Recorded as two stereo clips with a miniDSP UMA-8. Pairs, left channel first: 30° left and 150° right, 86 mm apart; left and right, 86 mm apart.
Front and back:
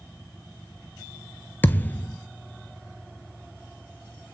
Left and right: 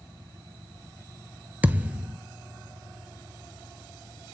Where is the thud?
30° right, 0.5 m.